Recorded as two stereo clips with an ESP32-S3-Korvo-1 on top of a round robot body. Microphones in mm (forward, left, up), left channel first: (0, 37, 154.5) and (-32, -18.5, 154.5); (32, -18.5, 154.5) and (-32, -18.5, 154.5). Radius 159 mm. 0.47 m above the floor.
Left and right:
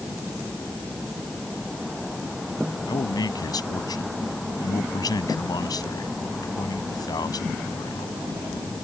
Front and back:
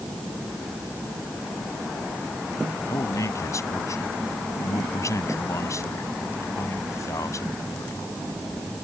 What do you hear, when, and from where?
2.9 s a man speaking: 40° left